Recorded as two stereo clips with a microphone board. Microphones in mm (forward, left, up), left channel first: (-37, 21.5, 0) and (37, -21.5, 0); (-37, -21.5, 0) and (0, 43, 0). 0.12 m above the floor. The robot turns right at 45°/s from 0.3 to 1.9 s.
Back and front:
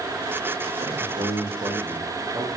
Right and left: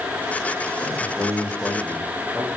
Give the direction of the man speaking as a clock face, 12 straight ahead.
2 o'clock.